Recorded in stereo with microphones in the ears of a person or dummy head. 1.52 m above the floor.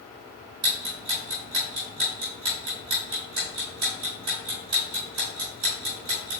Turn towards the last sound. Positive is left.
turn(degrees=-25)  # may be behind; listen again after turning